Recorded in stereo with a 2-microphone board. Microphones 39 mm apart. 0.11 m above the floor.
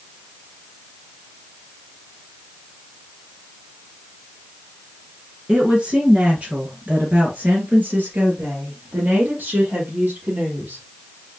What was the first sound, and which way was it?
A woman speaking, 20° right (ahead or behind).